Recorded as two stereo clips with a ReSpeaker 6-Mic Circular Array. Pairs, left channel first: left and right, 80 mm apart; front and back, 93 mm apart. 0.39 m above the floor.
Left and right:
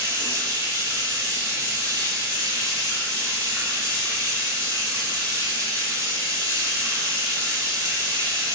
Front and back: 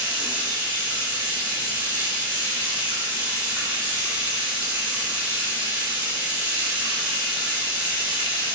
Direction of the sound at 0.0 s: 115° right.